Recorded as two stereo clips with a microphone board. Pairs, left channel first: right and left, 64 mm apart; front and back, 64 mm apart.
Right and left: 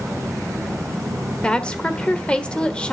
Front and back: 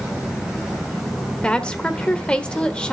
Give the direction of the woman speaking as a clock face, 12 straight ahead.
2 o'clock.